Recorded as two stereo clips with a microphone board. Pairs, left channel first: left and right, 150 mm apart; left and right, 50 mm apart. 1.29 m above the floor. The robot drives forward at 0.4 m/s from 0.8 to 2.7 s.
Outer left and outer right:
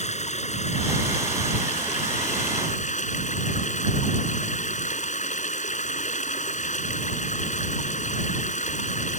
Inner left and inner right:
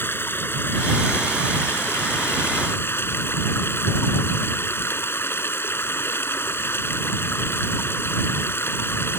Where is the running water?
45° left (ahead or behind); by 9.2 s 50° left (ahead or behind).